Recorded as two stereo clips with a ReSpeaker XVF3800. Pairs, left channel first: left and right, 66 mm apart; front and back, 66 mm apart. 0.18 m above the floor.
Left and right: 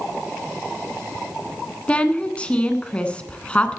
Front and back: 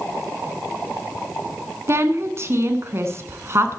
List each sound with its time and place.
1.9 s a woman speaking: 155° left, 1.7 m